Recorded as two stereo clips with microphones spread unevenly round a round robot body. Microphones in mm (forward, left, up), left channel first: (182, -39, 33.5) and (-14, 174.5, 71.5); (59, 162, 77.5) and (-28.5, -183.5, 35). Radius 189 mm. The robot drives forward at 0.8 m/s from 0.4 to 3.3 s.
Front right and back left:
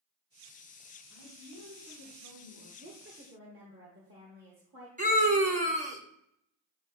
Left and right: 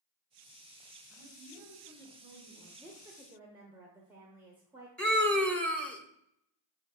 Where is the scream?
175° left, 0.9 m.